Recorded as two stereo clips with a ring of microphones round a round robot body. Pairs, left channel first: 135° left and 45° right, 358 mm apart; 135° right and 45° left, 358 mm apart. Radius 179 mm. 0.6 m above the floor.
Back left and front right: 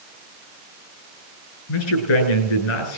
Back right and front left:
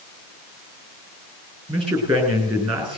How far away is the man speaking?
About 9 m.